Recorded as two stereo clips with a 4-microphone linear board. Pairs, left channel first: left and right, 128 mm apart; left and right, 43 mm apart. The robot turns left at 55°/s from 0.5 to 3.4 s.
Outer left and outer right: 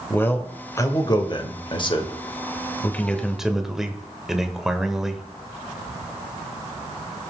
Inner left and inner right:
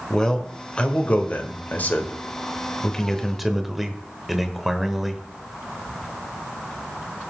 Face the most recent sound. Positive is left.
turn(degrees=-5)